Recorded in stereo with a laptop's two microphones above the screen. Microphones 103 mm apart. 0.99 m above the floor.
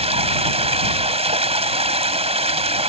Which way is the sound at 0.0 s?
85° right.